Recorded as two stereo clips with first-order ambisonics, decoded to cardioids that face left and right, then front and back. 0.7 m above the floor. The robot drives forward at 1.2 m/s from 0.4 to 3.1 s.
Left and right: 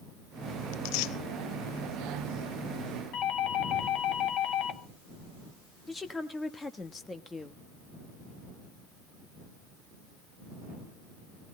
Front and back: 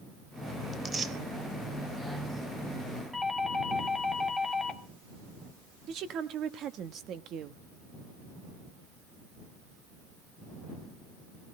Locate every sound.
0.7 s tearing paper: 85° left, 1.0 m; by 1.1 s 110° left, 1.1 m
3.1 s a doorbell: 85° left, 1.2 m
5.9 s a woman speaking: 165° left, 1.1 m